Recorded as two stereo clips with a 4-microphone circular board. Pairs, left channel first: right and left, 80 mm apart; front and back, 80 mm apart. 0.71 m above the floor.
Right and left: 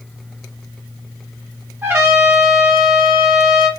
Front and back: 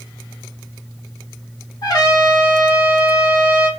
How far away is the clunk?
No clunk in this recording.